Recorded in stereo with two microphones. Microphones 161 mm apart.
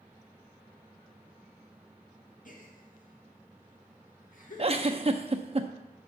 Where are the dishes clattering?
I don't hear dishes clattering.